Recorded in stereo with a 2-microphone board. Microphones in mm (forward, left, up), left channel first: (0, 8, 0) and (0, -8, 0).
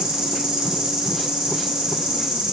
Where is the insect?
70° right (ahead or behind), 2 m.